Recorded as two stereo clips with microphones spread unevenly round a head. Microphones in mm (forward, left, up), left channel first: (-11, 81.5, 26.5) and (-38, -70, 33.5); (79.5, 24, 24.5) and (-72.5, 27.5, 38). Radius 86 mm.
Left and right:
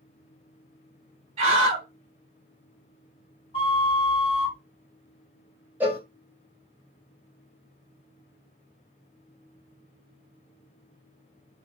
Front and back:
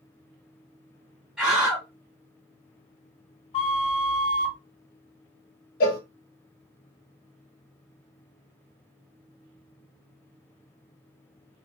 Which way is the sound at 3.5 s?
35° left.